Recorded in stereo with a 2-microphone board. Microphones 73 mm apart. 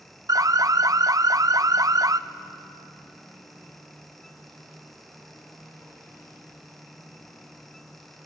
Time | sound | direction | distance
0.3 | an alarm | 55° right (ahead or behind) | 0.5 m